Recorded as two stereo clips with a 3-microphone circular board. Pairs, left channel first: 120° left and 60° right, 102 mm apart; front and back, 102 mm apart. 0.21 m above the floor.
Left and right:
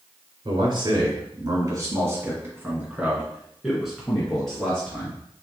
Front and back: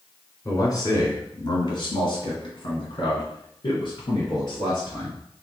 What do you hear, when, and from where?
0.5 s a man speaking: 50° right, 1.6 m; by 5.2 s 40° left, 2.5 m